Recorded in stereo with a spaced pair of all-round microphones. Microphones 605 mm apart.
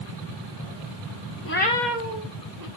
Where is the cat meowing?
25° left (ahead or behind), 0.5 m; by 2.7 s 35° right (ahead or behind), 0.8 m.